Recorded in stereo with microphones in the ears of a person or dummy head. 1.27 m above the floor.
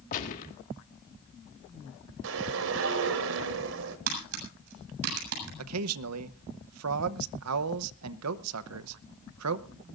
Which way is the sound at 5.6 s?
90° right.